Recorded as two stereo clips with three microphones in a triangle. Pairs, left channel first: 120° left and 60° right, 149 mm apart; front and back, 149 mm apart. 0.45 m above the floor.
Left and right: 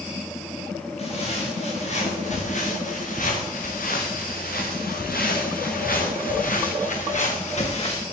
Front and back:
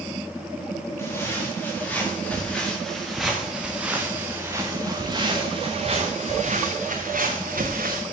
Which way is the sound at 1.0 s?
75° left.